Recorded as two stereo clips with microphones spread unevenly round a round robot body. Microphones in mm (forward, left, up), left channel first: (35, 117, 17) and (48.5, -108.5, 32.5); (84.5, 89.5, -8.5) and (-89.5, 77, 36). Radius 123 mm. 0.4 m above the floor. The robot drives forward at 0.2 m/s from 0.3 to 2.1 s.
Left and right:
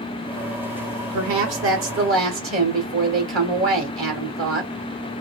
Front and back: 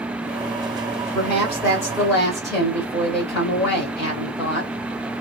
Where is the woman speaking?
80° right, 1.4 m; by 4.7 s 90° right, 1.3 m.